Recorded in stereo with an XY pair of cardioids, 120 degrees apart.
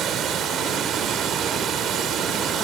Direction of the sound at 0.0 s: 60° right.